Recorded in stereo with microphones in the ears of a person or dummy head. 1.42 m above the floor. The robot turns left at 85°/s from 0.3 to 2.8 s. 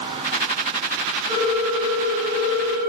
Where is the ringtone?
65° right, 1.1 m; by 2.9 s 165° left, 1.1 m.